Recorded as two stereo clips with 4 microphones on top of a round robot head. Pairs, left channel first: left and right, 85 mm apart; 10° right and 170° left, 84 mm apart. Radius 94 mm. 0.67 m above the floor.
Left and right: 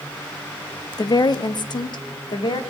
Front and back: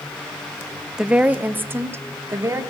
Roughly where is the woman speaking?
Left.